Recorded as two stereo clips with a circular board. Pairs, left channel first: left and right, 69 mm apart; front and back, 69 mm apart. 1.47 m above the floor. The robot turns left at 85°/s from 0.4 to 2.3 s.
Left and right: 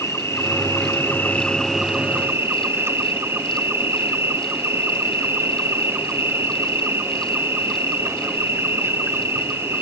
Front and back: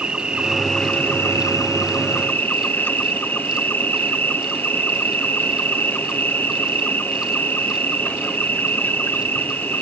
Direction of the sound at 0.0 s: 110° left.